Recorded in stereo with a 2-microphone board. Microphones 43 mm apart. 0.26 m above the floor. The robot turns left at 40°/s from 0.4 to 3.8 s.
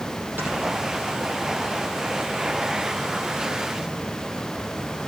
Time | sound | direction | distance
0.4 | snoring | 50° right (ahead or behind) | 5 m